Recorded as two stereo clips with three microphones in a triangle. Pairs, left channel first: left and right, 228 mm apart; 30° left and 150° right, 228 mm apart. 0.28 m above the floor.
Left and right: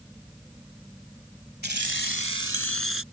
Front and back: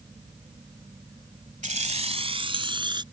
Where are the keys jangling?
105° right; by 3.0 s 80° right.